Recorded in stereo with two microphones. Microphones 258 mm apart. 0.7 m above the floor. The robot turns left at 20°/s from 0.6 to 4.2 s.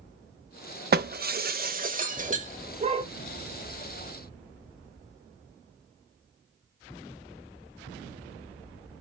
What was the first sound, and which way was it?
Breaking glass, 40° right (ahead or behind).